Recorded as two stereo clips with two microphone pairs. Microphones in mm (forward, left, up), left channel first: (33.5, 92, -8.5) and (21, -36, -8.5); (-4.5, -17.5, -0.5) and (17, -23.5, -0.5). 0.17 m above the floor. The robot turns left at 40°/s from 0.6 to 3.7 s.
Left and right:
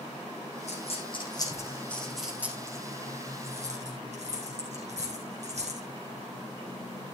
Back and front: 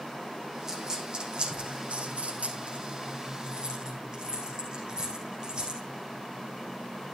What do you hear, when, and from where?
0.7 s a dropped coin: 55° left, 4.5 m; by 5.8 s 65° right, 4.5 m